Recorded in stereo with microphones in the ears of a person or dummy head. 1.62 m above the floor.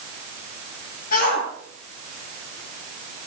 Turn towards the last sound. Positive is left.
turn(degrees=55)  # may be behind; listen again after turning